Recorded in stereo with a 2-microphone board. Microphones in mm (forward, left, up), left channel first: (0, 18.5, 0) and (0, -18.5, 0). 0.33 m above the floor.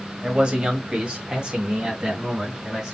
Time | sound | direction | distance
0.2 | a man speaking | 30° right (ahead or behind) | 1.7 m